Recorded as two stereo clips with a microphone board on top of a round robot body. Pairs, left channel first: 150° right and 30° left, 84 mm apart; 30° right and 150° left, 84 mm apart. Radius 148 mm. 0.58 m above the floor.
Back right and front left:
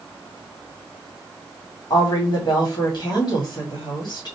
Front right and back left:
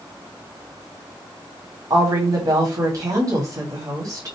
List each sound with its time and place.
1.9 s a woman speaking: 175° right, 2.5 m